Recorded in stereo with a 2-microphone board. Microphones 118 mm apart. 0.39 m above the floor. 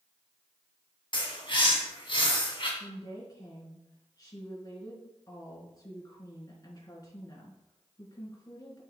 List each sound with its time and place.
1.1 s a bird: 45° left (ahead or behind), 2 m
2.8 s a woman speaking: 30° left (ahead or behind), 4 m